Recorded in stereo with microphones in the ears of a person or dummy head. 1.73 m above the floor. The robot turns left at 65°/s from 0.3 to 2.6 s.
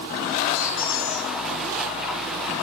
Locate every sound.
0.5 s a squeak: 105° left, 5.5 m; by 1.3 s 55° left, 5.5 m